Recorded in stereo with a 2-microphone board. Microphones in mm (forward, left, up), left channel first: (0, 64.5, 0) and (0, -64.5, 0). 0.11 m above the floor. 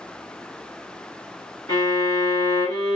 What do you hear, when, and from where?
1.7 s a violin: 30° left (ahead or behind), 1.5 m